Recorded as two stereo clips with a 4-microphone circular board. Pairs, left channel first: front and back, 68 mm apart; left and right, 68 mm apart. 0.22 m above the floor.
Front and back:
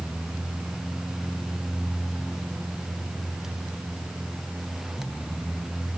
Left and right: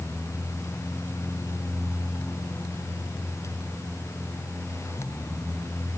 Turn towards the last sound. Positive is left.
No sound to turn to.